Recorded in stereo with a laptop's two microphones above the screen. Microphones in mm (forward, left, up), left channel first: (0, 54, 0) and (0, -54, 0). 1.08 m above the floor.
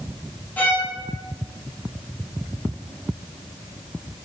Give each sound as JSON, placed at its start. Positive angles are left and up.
{"t": 0.6, "sound": "a violin", "side_deg": 15, "distance_m": 0.6}